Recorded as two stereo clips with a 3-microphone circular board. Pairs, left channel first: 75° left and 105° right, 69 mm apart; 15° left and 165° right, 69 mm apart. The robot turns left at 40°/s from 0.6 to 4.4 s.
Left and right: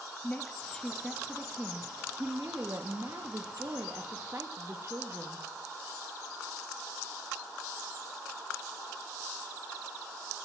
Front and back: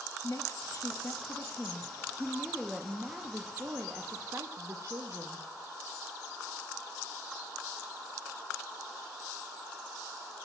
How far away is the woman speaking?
About 0.7 m.